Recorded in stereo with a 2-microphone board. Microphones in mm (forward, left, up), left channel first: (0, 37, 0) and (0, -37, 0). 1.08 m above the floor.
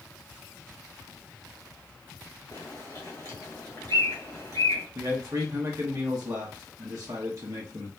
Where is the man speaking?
50° right (ahead or behind), 1.1 m.